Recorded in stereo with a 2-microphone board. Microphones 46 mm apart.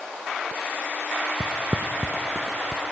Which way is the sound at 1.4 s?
45° right (ahead or behind).